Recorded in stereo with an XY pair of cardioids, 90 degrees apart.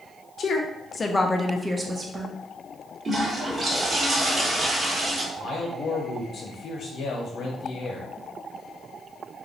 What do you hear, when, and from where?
0.4 s a woman speaking: 60° left, 0.9 m; by 2.3 s 45° right, 0.9 m
3.0 s a toilet flushing: 40° right, 1.6 m
5.4 s a man speaking: 65° left, 1.0 m